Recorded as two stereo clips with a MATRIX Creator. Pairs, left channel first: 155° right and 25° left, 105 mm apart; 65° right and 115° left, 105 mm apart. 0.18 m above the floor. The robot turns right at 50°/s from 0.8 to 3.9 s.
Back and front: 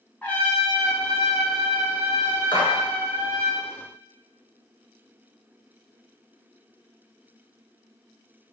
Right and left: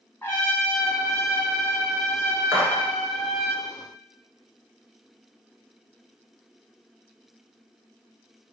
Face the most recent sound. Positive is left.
turn(degrees=-120)